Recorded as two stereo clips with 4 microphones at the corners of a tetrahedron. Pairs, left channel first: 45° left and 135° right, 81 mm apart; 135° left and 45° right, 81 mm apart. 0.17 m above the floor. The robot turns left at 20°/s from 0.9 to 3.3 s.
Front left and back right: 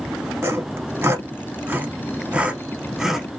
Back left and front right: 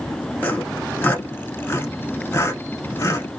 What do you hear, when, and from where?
0.4 s sawing: 175° right, 0.7 m; by 3.3 s 140° left, 0.7 m